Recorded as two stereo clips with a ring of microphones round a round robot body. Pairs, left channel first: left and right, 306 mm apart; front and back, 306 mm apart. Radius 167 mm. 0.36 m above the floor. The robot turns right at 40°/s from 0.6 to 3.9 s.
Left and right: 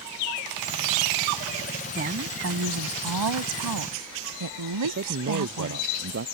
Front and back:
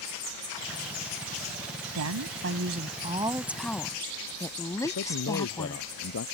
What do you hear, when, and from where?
1.9 s a woman speaking: 155° right; by 5.8 s 80° right
4.8 s a man speaking: 40° right